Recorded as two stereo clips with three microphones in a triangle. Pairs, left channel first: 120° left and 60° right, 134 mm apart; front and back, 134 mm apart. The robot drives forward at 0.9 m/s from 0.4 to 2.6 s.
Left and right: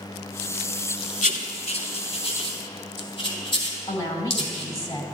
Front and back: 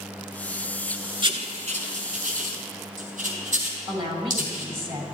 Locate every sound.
1.2 s writing: 135° left, 0.5 m; by 4.7 s 165° left, 1.6 m
3.9 s a woman speaking: 170° left, 1.6 m